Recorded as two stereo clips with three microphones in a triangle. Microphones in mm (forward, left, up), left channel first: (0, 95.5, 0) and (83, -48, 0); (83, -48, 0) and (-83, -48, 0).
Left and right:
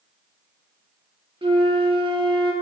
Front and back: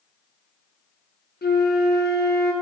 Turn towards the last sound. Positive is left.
turn(degrees=0)